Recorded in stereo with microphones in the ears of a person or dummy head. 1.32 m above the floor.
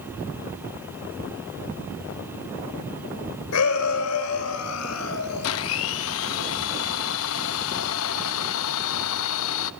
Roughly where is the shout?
Left.